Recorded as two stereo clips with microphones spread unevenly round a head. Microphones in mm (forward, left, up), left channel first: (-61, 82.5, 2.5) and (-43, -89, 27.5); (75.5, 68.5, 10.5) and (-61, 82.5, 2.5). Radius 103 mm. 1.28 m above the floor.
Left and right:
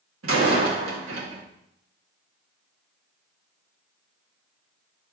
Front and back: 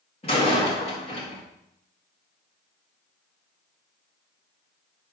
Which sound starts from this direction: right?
A door slam, at 0.2 s.